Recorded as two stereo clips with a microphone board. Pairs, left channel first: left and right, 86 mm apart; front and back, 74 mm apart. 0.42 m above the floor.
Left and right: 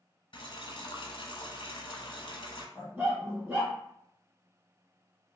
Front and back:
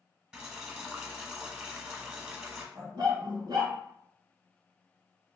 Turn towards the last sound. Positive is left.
turn(degrees=-155)